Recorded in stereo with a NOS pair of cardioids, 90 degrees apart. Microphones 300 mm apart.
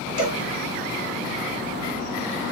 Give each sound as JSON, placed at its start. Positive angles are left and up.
{"t": 0.2, "sound": "a cowbell", "azimuth_deg": 65, "distance_m": 2.0}